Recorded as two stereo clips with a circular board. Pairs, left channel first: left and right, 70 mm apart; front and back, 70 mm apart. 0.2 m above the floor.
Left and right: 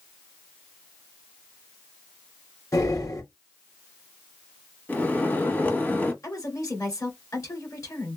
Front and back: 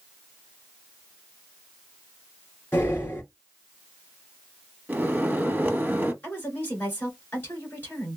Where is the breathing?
55° left, 2.5 m.